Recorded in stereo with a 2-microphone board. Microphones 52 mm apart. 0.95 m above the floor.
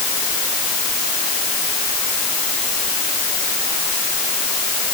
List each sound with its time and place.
Only background noise.